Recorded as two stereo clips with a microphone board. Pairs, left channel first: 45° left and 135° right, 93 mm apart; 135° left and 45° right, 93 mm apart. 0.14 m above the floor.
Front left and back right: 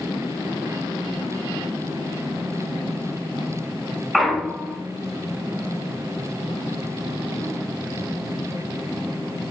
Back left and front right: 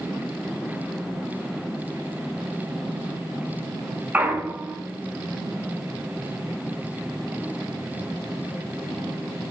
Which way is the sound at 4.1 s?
40° right.